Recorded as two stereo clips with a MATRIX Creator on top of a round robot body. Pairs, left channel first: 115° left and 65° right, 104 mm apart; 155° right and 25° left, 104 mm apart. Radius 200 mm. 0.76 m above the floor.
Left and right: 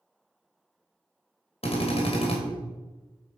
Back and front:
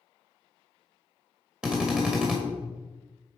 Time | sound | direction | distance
1.6 | a drill | 105° left | 2.5 m